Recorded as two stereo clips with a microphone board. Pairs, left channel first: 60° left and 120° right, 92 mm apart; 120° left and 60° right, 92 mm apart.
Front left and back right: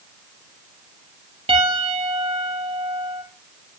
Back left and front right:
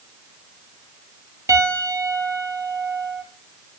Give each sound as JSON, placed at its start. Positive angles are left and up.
{"t": 1.5, "sound": "a piano", "azimuth_deg": -115, "distance_m": 4.5}